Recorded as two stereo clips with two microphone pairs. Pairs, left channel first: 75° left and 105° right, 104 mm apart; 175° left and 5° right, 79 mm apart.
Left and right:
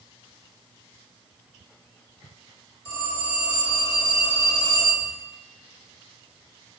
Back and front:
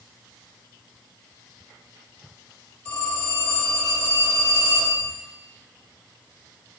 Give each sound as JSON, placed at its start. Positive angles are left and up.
{"t": 2.9, "sound": "a phone ringing", "azimuth_deg": 100, "distance_m": 1.7}